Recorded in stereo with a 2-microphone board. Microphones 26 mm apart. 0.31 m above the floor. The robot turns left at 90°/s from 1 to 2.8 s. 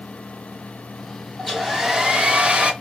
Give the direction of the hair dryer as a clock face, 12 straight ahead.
11 o'clock.